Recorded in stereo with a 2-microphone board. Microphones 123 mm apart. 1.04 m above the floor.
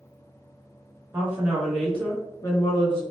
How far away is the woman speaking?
About 1.0 m.